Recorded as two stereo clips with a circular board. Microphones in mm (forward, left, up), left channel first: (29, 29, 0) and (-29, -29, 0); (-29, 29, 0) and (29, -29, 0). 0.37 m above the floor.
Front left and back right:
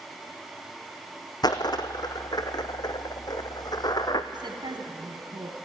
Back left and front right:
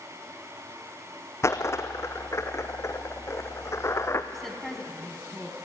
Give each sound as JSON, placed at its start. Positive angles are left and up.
{"t": 1.4, "sound": "a dropped coin", "azimuth_deg": 80, "distance_m": 1.8}
{"t": 4.3, "sound": "a woman speaking", "azimuth_deg": -135, "distance_m": 3.5}